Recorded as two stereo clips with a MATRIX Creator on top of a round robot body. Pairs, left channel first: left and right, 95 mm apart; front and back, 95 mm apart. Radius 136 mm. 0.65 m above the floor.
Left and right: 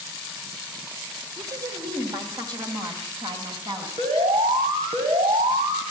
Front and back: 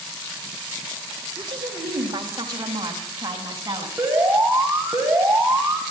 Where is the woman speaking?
140° right, 4 m; by 3.9 s 125° right, 7 m.